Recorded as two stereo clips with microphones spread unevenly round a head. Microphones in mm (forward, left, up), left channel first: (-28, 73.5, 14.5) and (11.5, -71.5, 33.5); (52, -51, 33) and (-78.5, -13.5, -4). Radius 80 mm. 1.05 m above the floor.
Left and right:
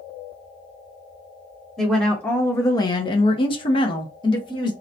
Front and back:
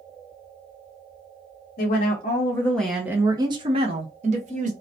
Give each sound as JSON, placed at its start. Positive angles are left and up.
{"t": 1.8, "sound": "a woman speaking", "azimuth_deg": 25, "distance_m": 0.7}